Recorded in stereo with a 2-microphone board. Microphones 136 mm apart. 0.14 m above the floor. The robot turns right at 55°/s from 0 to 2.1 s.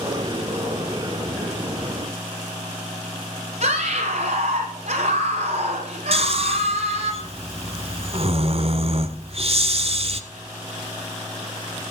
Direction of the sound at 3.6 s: 65° right (ahead or behind).